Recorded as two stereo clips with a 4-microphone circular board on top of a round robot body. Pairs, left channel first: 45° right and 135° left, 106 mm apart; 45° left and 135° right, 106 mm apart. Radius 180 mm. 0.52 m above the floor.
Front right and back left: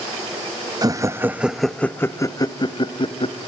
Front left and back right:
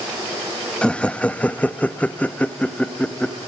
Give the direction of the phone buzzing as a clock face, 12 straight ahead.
I don't hear a phone buzzing.